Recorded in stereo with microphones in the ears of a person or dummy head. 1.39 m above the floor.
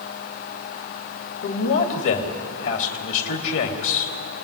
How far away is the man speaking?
About 3 m.